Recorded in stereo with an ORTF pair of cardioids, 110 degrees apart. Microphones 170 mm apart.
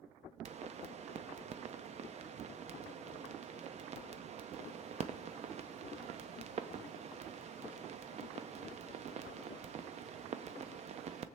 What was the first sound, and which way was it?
A pop, 45° right.